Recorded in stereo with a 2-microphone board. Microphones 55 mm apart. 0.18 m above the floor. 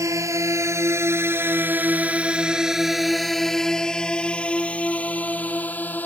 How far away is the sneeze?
No sneeze in this recording.